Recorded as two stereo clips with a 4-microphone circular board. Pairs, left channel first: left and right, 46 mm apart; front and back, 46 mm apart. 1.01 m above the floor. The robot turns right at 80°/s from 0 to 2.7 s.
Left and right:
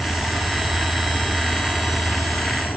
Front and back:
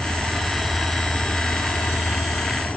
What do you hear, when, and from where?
0.0 s an insect: 165° right; by 2.8 s 50° left